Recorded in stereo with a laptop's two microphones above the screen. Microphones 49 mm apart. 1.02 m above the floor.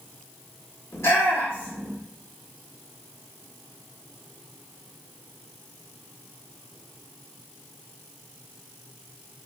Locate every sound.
0.9 s a shout: 70° left (ahead or behind), 2.5 m